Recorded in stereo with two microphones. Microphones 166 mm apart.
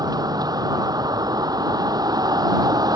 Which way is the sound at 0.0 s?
25° right (ahead or behind).